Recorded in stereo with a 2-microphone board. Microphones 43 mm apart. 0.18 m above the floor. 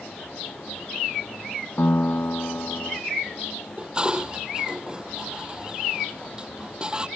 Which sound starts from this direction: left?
A piano, at 1.8 s.